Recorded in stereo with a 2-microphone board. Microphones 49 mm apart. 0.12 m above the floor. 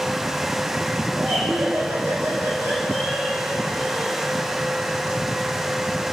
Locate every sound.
1.1 s laughter: 80° right, 7.5 m; by 4.1 s 55° right (ahead or behind), 7.5 m